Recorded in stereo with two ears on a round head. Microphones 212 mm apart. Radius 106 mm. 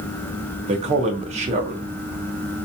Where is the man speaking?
30° right (ahead or behind), 0.7 m.